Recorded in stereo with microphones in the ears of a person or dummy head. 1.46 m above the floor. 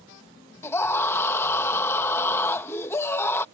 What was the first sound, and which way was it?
A scream, 10° left (ahead or behind).